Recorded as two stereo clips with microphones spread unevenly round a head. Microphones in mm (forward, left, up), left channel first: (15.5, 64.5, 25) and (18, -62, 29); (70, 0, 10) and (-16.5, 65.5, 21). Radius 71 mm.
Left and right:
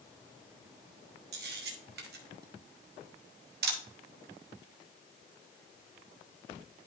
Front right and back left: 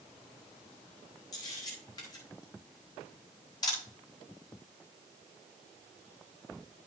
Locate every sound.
1.3 s a camera shutter: 105° right, 1.5 m